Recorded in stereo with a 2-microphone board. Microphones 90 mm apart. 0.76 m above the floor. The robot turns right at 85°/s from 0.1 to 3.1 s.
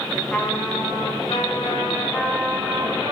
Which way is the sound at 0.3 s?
10° left.